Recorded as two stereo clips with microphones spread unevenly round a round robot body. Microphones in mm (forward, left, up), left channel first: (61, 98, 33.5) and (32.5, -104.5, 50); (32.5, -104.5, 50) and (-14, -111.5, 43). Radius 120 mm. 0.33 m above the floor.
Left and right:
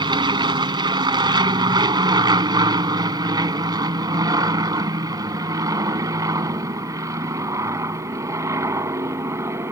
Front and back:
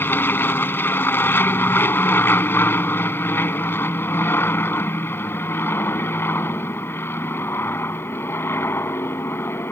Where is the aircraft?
30° right; by 9.7 s 20° right.